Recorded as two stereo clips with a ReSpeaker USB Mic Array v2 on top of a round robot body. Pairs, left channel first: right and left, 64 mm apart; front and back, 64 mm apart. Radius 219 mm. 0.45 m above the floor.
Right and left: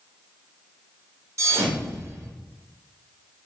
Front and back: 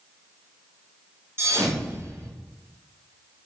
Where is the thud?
130° left, 0.9 m.